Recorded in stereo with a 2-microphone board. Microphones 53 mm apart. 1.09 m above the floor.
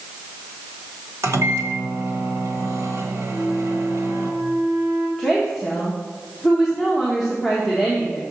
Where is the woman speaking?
Centre (ahead or behind), 1.3 m.